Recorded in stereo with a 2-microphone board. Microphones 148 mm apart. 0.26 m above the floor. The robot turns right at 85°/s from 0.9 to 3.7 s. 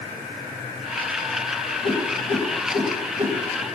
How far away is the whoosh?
About 1.7 m.